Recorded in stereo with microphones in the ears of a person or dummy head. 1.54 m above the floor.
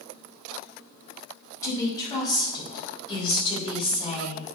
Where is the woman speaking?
20° left (ahead or behind), 5 m; by 4.5 s 35° left (ahead or behind), 5.5 m.